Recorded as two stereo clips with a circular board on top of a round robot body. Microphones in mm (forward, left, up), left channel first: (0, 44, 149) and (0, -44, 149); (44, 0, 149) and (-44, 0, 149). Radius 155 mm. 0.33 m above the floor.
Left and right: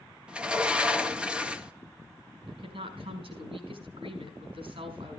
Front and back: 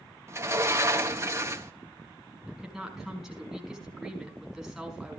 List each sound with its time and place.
0.3 s a sliding door: 160° right, 1.6 m
2.5 s a woman speaking: 95° right, 5.5 m